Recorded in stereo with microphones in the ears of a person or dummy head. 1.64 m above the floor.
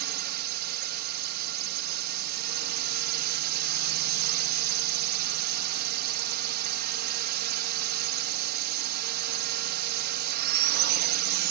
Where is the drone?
60° right (ahead or behind).